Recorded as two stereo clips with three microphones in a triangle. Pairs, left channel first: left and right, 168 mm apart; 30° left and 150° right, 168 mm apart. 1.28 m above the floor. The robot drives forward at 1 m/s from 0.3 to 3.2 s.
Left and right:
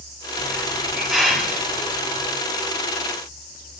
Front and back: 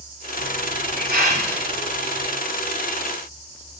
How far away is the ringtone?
No ringtone in this recording.